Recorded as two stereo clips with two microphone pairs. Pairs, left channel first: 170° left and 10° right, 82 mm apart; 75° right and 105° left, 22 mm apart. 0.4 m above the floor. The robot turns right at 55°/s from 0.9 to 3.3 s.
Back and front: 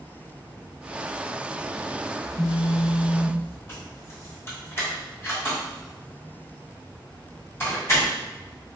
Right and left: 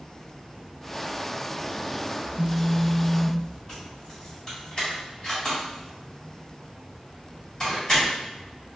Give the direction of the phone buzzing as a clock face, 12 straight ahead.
7 o'clock.